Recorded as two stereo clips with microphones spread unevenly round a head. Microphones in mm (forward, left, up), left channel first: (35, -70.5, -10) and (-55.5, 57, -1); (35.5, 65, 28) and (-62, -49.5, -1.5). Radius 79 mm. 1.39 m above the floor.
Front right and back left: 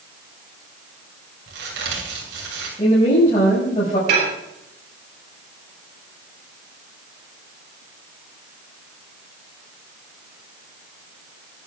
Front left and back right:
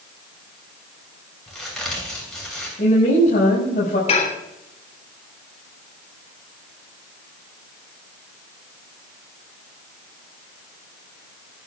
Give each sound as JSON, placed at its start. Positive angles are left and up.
{"t": 1.5, "sound": "a crack", "azimuth_deg": 135, "distance_m": 7.0}
{"t": 2.8, "sound": "a woman speaking", "azimuth_deg": 5, "distance_m": 5.5}
{"t": 4.1, "sound": "dishes clattering", "azimuth_deg": 95, "distance_m": 3.5}